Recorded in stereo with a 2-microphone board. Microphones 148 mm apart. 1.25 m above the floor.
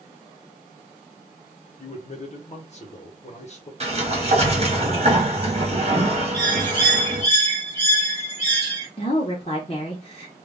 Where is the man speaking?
45° left (ahead or behind), 0.8 m.